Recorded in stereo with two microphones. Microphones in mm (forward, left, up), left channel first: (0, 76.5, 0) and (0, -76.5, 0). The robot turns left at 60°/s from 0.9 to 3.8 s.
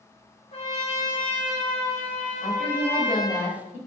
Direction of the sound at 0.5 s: 90° left.